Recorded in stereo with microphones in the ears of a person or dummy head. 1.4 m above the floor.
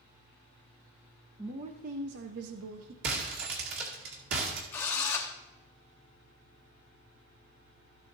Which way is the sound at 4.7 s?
15° left (ahead or behind).